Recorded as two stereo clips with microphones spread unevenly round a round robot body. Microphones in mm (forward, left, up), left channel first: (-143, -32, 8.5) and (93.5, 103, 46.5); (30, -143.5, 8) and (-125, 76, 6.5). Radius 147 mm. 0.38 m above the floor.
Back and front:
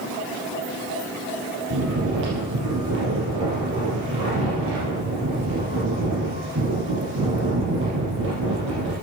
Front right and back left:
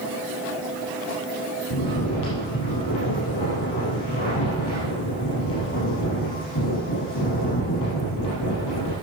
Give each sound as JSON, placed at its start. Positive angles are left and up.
{"t": 1.7, "sound": "snoring", "azimuth_deg": -25, "distance_m": 4.5}